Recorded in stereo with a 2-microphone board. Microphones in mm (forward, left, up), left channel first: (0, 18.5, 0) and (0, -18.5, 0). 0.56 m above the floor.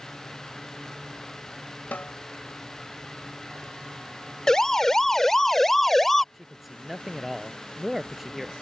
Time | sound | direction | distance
1.9 | a snare drum | 55° left (ahead or behind) | ?
4.5 | a siren | 15° left (ahead or behind) | ?
6.3 | a man speaking | 5° right (ahead or behind) | ?